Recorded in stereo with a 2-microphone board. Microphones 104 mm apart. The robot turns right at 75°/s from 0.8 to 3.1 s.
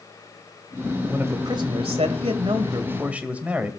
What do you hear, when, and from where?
1.1 s a man speaking: 165° right, 2.5 m; by 3.7 s 15° right, 2.5 m